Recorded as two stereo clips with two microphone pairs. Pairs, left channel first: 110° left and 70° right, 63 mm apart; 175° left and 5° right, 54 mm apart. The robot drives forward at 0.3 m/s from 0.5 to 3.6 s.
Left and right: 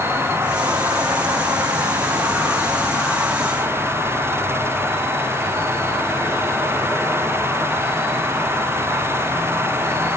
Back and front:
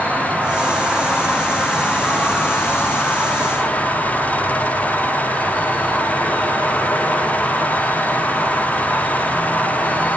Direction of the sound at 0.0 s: 70° right.